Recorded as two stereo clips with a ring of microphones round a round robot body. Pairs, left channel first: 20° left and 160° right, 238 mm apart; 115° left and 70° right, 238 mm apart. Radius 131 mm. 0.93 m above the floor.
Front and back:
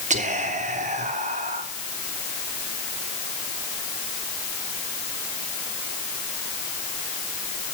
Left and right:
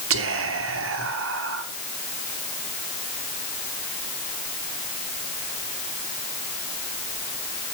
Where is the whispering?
95° right, 3 m.